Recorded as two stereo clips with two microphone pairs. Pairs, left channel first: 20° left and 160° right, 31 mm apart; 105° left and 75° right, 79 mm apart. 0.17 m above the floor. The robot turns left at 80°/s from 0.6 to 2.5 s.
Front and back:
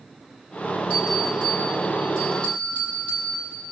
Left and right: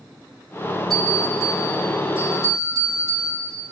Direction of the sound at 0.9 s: 165° right.